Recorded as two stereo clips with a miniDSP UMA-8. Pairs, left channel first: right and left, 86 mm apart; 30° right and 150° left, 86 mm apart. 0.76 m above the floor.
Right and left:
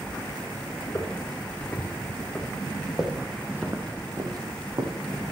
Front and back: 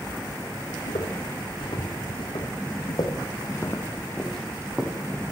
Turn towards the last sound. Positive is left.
turn(degrees=75)